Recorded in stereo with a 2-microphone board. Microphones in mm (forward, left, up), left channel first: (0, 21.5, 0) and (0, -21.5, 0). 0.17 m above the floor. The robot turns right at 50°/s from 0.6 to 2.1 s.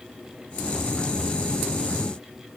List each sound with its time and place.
Only background noise.